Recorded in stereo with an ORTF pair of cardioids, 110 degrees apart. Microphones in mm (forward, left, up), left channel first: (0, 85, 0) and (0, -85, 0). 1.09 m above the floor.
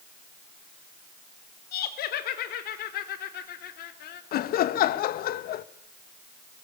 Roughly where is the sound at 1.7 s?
Left.